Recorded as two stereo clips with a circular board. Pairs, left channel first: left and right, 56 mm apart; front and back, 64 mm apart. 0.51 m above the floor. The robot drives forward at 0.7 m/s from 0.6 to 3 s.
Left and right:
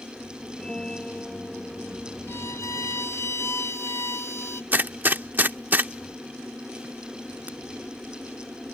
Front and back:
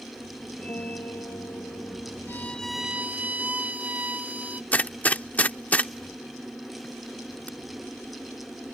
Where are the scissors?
I don't hear scissors.